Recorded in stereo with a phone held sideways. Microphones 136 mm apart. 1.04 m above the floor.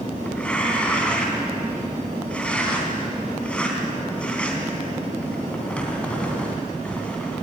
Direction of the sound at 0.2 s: 10° left (ahead or behind).